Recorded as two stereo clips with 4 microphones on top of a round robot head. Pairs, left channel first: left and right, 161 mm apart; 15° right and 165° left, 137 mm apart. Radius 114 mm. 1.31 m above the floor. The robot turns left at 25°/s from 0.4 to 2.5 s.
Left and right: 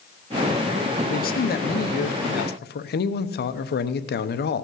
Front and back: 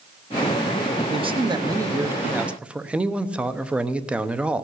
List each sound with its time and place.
1.1 s a man speaking: 120° left, 0.9 m; by 4.6 s 85° left, 0.9 m